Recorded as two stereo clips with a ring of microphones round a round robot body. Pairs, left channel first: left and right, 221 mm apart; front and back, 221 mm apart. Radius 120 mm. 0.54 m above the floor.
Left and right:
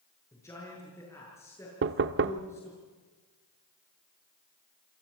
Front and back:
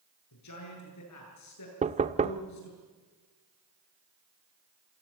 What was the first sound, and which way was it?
A man speaking, 10° left.